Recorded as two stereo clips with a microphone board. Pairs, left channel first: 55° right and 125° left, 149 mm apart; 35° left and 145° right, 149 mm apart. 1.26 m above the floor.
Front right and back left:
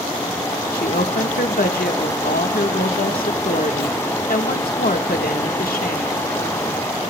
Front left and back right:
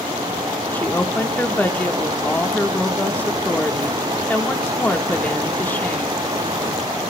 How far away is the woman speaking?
About 1.5 m.